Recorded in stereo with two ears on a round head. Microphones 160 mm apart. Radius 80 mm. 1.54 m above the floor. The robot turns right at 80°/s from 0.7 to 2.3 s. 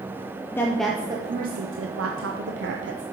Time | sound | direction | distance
0.5 | a woman speaking | 170° left | 0.6 m